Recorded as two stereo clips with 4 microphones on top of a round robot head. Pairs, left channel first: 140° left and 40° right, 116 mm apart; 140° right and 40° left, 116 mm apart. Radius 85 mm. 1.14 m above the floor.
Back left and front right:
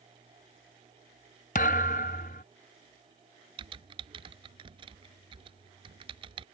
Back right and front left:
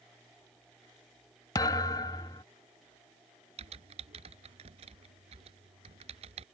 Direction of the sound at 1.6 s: 160° left.